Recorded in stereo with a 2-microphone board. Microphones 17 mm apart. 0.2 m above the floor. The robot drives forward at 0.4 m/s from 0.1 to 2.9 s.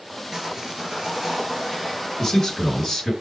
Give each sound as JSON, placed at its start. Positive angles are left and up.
{"t": 0.3, "sound": "sawing", "side_deg": -35, "distance_m": 2.0}
{"t": 2.2, "sound": "a man speaking", "side_deg": 25, "distance_m": 1.9}